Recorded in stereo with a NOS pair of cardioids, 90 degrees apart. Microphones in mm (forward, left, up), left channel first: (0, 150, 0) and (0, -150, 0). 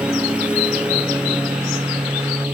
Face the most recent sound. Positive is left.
turn(degrees=-5)